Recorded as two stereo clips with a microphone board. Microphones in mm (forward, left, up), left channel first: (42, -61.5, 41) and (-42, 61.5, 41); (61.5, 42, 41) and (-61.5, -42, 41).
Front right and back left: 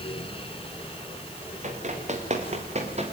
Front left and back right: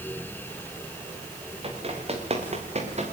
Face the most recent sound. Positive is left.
turn(degrees=170)